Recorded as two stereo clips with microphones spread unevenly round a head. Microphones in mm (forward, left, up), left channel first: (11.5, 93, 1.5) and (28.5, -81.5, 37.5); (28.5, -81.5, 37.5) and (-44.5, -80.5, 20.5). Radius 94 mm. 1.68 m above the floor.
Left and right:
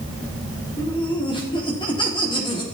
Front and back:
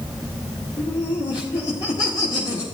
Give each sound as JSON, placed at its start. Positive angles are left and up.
{"t": 0.8, "sound": "laughter", "azimuth_deg": 30, "distance_m": 3.5}